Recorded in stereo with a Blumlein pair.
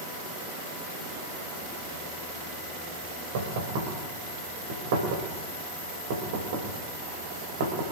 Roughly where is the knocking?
Ahead right.